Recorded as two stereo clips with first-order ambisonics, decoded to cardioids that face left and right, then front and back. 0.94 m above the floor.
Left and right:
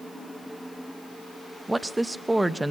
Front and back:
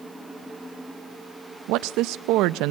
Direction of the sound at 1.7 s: 170° right.